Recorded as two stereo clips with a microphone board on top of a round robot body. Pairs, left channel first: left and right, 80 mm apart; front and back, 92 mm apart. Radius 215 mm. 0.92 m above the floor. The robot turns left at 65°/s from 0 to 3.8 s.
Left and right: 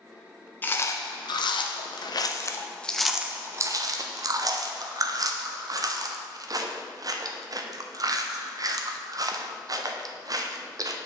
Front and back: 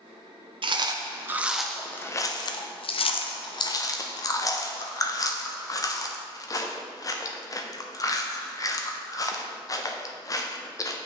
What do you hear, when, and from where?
0.6 s chewing: 155° left, 0.5 m; by 11.0 s 50° right, 0.5 m